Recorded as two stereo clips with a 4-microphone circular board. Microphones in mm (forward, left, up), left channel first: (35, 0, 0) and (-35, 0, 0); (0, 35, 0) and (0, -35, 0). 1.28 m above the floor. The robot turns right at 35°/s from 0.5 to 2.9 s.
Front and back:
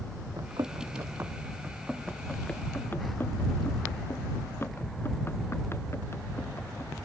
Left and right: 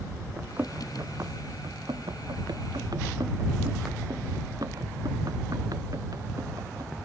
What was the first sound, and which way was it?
Running footsteps, 155° right.